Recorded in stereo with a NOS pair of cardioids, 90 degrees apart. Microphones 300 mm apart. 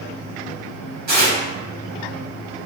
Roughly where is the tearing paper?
Ahead right.